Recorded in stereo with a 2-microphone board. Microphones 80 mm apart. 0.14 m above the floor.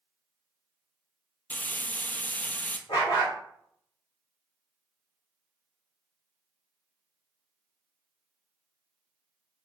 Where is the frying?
20° left (ahead or behind), 0.5 m.